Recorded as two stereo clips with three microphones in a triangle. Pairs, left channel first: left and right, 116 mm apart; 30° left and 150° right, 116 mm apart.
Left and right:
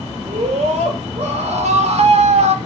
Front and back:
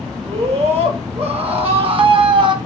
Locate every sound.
0.2 s a scream: 120° right, 3.5 m; by 2.5 s 105° right, 2.0 m